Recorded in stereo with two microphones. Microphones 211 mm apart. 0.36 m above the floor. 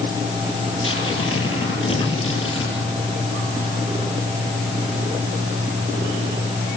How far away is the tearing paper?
About 10 m.